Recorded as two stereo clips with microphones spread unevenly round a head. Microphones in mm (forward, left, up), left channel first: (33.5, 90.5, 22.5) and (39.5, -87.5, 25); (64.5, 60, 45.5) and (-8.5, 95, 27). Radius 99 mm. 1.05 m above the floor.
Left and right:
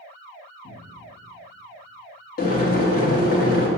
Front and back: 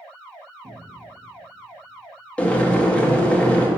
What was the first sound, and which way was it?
A cupboard door, 110° left.